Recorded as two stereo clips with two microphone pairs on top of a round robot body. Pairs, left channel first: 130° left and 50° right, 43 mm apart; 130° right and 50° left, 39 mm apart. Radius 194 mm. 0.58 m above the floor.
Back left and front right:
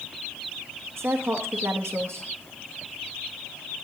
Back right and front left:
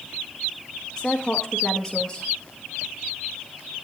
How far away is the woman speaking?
About 1.0 m.